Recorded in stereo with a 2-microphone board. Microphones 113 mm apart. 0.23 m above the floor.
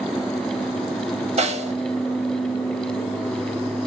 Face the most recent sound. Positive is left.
turn(degrees=-85)